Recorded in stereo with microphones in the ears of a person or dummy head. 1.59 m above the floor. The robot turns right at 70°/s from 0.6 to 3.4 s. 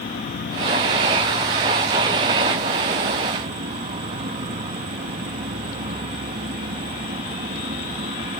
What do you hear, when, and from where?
0.0 s an insect: 110° left; by 8.4 s 55° right